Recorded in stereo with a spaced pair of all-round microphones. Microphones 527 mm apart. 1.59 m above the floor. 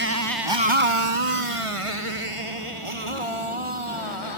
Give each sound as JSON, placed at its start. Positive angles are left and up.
{"t": 0.0, "sound": "a motorcycle", "side_deg": -20}